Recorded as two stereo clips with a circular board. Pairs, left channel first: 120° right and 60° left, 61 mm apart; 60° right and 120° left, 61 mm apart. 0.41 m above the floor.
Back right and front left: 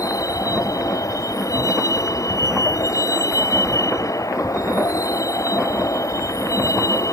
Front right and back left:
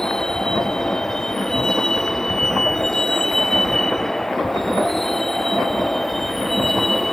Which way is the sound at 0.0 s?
140° right.